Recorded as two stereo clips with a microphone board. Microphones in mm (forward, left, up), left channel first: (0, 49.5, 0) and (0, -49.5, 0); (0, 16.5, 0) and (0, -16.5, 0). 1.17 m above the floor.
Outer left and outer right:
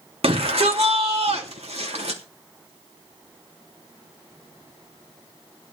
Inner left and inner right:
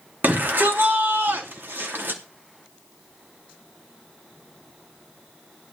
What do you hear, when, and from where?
0.2 s a shout: 65° right (ahead or behind), 3 m; by 2.2 s 80° right, 3 m